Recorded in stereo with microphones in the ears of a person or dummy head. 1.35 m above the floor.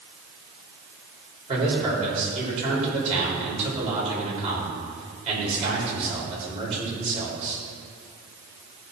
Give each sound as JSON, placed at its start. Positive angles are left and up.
{"t": 1.5, "sound": "a man speaking", "side_deg": -30, "distance_m": 4.0}